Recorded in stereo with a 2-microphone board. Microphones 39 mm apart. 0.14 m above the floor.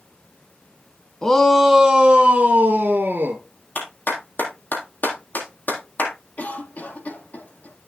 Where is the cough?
45° left (ahead or behind), 4 m.